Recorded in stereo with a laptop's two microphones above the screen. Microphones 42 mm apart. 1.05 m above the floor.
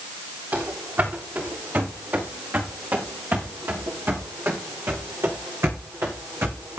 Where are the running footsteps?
55° right (ahead or behind), 6.5 m; by 6.8 s 80° right, 5.5 m.